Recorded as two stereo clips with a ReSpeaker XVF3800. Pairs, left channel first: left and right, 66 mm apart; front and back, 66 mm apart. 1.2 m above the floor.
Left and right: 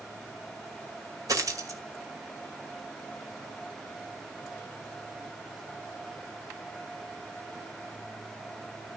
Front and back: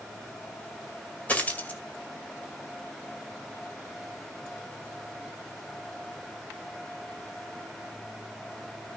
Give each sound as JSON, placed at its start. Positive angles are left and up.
{"t": 1.3, "sound": "a dropped coin", "azimuth_deg": -65, "distance_m": 2.0}